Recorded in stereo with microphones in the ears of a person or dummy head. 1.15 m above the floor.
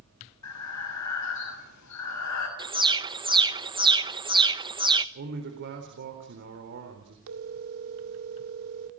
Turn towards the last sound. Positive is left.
turn(degrees=-70)  # may be behind; listen again after turning